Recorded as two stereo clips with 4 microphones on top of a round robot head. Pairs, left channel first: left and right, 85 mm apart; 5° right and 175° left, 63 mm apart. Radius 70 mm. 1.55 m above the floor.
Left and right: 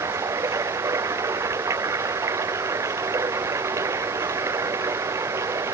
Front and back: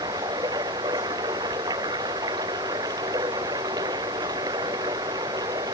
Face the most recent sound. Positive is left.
turn(degrees=-145)